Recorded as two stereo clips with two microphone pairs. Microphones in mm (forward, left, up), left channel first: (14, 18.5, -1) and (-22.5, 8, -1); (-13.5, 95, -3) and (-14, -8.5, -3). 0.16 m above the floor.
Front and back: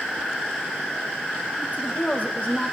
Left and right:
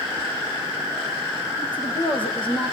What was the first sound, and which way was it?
A woman speaking, 60° left.